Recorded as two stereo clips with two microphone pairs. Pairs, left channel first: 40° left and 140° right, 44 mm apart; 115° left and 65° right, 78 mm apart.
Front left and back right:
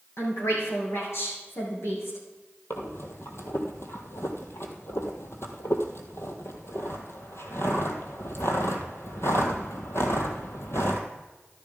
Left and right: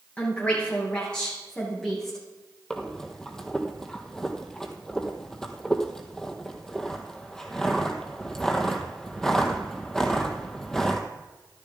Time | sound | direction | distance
0.2 | a woman speaking | 45° left | 6 m
2.7 | breathing | 35° left | 1.5 m